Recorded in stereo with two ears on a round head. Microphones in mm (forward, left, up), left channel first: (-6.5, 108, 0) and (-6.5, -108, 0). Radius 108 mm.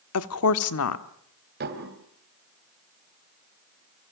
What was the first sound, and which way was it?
A woman speaking, 60° left (ahead or behind).